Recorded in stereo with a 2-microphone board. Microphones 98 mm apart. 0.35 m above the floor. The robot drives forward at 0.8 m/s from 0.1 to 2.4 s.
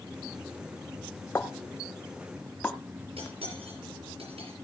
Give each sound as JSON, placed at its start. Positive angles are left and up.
{"t": 1.4, "sound": "a pop", "side_deg": 25, "distance_m": 1.2}
{"t": 3.2, "sound": "cutlery clinking", "side_deg": -75, "distance_m": 5.0}